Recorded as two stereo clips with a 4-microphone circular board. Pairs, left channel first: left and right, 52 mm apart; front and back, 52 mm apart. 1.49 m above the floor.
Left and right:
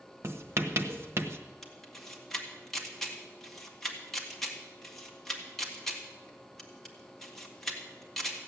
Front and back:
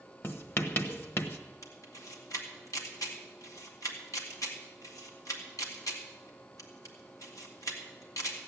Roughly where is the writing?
Ahead right.